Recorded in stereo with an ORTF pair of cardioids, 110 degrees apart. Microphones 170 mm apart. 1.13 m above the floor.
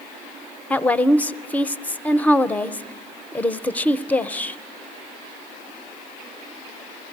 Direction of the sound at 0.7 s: 10° left.